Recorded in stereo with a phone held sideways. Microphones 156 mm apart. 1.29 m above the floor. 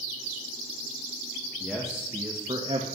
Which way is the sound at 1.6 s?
Centre (ahead or behind).